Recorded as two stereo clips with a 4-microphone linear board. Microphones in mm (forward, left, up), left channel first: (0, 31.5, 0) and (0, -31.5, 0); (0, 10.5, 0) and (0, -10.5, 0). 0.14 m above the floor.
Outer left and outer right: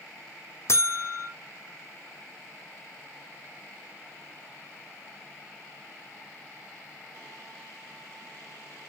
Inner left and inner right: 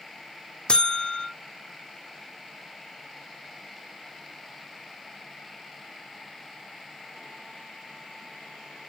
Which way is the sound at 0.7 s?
50° left (ahead or behind).